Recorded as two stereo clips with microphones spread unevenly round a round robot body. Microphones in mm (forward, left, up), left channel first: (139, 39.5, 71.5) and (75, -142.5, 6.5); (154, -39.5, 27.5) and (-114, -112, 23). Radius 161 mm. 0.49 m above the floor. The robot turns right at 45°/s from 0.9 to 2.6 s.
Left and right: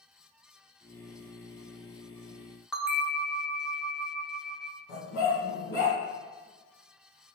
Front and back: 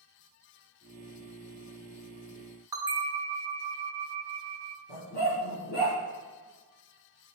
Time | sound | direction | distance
2.7 | a bell | 110° right | 0.6 m
4.9 | a dog barking | 75° left | 1.7 m